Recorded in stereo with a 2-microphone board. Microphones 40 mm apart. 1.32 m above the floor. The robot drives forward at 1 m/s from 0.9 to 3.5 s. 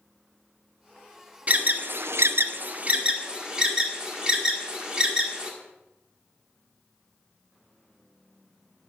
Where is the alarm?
35° right (ahead or behind), 0.9 m; by 5.5 s 20° right (ahead or behind), 1.4 m.